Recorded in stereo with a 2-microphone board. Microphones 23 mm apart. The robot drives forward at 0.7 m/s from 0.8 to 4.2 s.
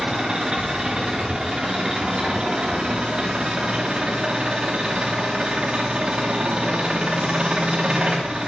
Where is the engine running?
35° right (ahead or behind), 8 m; by 8.5 s 50° right (ahead or behind), 6 m.